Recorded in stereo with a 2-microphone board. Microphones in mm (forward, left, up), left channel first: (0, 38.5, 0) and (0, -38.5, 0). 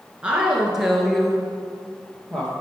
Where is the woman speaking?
15° right (ahead or behind), 1.2 m; by 2.5 s 10° left (ahead or behind), 2.5 m.